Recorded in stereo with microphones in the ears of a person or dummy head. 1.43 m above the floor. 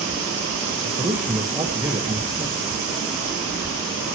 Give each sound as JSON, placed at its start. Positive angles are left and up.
{"t": 0.8, "sound": "a man speaking", "side_deg": -10, "distance_m": 1.5}